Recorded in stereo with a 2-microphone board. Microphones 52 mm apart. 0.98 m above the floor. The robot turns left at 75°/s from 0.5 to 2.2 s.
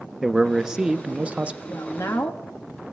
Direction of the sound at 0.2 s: 5° right (ahead or behind).